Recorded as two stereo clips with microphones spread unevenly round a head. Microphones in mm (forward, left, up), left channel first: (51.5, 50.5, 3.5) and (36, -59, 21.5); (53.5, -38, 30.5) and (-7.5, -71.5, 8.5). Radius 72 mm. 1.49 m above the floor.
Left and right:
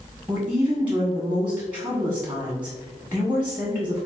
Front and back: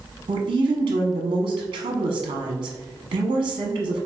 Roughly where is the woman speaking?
Behind.